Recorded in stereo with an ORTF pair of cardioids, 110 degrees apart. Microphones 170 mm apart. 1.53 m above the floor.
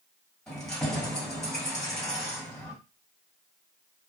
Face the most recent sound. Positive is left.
turn(degrees=5)